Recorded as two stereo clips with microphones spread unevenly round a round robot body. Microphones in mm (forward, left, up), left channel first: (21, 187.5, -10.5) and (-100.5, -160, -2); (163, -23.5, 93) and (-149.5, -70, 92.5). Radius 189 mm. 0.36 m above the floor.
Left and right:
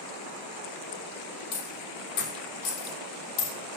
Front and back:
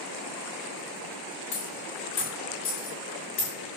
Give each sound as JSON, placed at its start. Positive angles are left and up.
{"t": 1.5, "sound": "a dropped coin", "azimuth_deg": 65, "distance_m": 5.0}